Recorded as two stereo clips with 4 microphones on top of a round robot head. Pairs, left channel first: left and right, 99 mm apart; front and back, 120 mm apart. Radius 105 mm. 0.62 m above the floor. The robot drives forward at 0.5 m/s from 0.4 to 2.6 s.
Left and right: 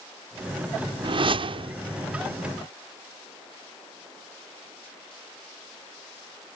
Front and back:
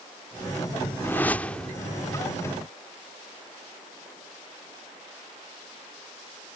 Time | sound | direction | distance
1.0 | a whoosh | 70° right | ?